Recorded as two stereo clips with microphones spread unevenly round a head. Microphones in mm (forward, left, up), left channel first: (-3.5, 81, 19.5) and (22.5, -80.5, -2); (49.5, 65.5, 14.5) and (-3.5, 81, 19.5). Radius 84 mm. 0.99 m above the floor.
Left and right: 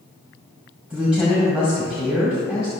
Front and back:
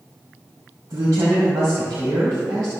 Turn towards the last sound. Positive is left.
turn(degrees=-165)